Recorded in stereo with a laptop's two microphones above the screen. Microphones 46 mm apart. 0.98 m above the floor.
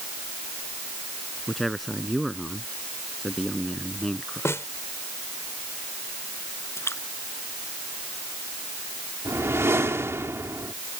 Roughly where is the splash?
Left.